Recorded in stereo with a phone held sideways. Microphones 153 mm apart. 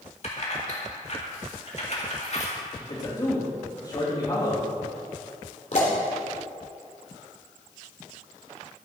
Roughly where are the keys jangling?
Left.